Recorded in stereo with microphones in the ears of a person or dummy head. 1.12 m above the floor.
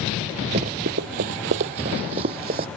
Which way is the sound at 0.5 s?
30° right (ahead or behind).